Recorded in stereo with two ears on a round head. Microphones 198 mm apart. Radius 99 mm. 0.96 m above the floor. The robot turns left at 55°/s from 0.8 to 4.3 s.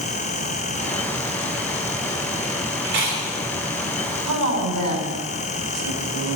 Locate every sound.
2.9 s chewing: 50° right (ahead or behind), 3.5 m; by 3.2 s 65° right (ahead or behind), 3.5 m
4.3 s a woman speaking: 80° right, 4 m